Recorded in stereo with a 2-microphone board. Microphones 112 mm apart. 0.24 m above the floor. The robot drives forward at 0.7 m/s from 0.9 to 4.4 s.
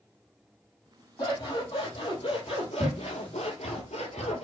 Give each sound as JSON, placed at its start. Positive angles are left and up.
{"t": 1.2, "sound": "scissors", "side_deg": 40, "distance_m": 2.5}